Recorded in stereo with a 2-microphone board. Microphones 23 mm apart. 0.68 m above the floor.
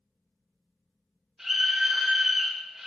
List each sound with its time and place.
1.4 s a scream: 20° right (ahead or behind), 4 m